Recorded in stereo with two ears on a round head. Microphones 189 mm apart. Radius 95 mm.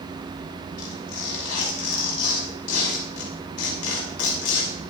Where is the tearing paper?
85° left, 6 m.